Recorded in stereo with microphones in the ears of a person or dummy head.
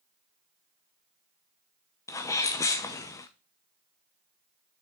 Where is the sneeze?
15° left (ahead or behind), 0.7 m.